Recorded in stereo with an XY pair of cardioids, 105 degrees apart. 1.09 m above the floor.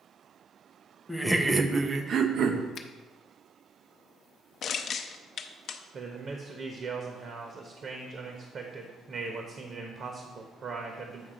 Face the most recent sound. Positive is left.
turn(degrees=-50)